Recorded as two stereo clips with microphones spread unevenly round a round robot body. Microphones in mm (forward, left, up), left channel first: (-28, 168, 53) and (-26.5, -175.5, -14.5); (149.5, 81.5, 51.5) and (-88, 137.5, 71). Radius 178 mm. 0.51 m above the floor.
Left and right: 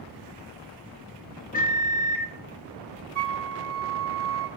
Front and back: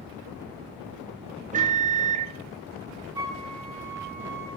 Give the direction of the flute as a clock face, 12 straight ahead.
4 o'clock.